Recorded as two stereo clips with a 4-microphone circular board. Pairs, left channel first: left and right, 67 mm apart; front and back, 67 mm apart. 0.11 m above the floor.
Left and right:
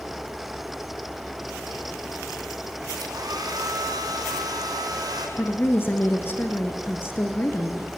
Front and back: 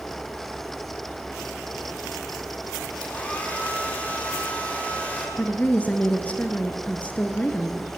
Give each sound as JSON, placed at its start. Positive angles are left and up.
{"t": 3.0, "sound": "a hair dryer", "azimuth_deg": -70, "distance_m": 5.0}
{"t": 5.4, "sound": "a woman speaking", "azimuth_deg": 55, "distance_m": 1.8}